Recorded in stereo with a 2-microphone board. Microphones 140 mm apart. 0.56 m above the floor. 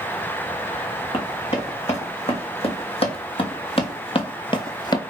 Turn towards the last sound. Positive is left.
turn(degrees=30)  # may be behind; listen again after turning